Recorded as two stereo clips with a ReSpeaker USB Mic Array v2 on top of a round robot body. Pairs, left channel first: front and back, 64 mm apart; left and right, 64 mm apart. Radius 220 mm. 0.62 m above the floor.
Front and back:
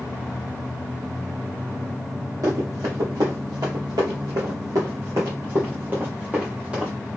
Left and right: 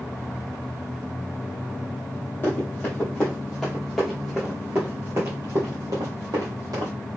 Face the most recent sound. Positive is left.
turn(degrees=-100)